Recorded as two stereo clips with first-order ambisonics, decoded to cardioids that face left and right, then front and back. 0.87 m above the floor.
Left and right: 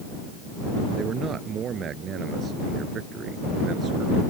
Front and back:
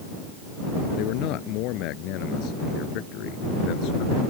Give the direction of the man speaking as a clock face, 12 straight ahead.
1 o'clock.